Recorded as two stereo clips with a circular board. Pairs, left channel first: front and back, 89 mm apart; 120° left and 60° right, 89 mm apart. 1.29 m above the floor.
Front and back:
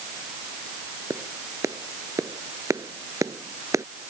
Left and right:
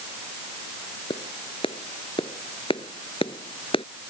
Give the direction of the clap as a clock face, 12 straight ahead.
8 o'clock.